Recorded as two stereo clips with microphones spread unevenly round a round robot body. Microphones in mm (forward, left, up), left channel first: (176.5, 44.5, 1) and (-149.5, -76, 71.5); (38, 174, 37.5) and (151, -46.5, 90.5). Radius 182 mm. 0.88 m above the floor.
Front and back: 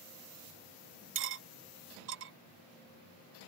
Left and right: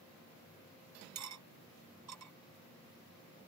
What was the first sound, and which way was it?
Cutlery clinking, 105° right.